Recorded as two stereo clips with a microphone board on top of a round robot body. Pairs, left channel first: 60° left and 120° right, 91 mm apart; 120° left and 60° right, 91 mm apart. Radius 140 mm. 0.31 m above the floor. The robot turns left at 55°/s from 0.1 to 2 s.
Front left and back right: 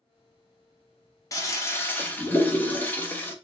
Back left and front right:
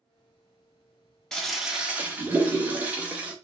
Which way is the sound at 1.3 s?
40° left.